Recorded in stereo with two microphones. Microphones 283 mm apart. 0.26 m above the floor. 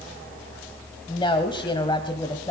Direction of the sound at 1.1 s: 15° left (ahead or behind).